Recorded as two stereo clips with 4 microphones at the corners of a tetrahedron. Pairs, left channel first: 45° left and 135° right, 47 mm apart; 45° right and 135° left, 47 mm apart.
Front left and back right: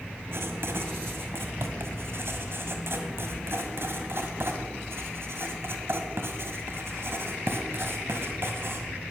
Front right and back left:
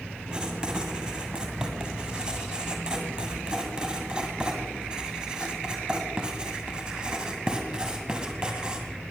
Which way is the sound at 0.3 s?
155° right.